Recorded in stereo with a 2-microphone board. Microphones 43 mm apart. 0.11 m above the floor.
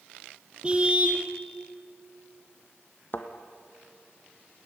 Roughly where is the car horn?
Right.